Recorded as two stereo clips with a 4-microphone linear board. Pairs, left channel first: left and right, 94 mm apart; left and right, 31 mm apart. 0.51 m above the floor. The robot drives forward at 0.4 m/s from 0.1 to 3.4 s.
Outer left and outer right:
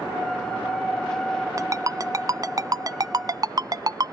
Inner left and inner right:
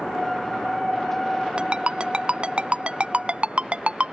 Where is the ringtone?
35° right (ahead or behind); by 4.2 s 45° right (ahead or behind).